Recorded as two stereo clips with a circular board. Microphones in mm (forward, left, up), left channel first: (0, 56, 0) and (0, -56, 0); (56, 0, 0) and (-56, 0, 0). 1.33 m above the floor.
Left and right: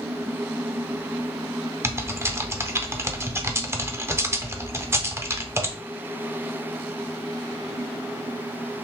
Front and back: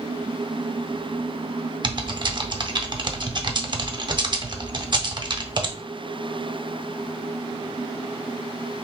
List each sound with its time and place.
1.8 s typing on a keyboard: 150° right, 0.6 m